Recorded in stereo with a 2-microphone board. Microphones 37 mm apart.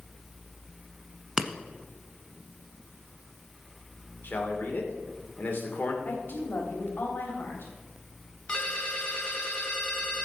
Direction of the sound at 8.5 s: 30° left (ahead or behind).